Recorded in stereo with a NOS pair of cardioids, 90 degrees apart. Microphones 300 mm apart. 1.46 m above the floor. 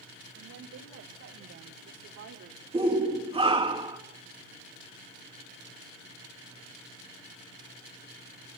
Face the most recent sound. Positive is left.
turn(degrees=-20)